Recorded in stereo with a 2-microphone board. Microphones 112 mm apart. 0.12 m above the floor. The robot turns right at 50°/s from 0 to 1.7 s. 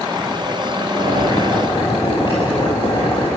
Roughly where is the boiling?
Left.